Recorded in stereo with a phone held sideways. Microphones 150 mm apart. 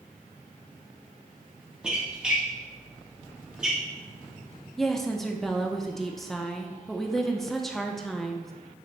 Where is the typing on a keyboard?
I don't hear typing on a keyboard.